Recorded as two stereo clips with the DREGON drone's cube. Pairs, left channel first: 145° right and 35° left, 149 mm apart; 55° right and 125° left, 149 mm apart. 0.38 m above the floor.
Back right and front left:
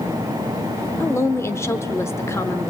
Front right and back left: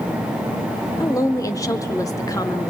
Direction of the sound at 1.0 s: 95° right.